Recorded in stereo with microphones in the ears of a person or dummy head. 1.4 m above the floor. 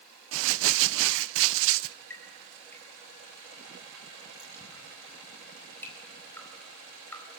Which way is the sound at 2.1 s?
10° left (ahead or behind).